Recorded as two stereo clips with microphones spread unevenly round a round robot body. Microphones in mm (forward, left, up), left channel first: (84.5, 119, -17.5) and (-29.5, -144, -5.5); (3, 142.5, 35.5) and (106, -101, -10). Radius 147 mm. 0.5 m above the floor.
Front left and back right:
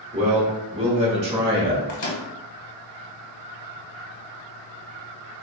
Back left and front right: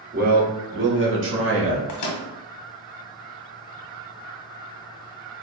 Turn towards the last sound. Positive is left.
turn(degrees=100)